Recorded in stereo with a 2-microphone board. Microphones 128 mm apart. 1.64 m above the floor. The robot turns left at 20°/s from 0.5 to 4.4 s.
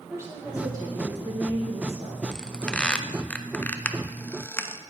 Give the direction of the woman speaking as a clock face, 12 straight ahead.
1 o'clock.